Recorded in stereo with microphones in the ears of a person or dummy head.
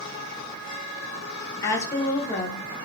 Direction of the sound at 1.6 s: 15° left (ahead or behind).